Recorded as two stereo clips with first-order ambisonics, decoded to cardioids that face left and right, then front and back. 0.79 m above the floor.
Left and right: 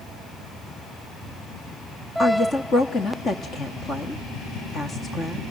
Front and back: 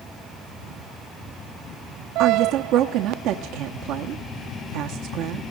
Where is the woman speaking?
155° left, 1.1 m.